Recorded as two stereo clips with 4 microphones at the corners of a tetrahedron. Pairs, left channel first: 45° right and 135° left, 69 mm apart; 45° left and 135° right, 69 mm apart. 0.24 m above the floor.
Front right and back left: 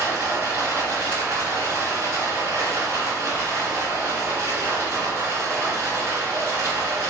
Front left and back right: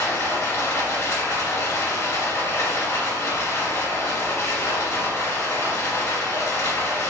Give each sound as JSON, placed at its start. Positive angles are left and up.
{"t": 0.0, "sound": "running water", "azimuth_deg": 95, "distance_m": 1.8}